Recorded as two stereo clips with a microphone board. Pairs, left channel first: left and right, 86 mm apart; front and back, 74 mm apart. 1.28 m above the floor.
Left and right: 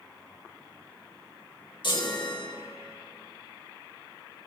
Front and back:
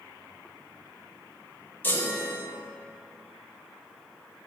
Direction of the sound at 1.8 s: 65° left.